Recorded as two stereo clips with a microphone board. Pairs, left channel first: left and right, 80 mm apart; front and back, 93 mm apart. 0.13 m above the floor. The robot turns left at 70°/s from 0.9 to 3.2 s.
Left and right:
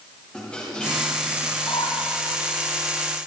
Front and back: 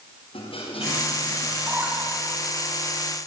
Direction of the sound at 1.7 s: 115° left.